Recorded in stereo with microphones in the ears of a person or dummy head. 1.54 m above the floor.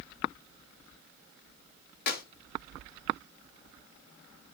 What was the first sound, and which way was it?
A clap, 60° left (ahead or behind).